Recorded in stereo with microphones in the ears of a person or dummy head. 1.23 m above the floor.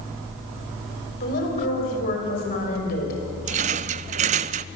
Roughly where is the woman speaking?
Left.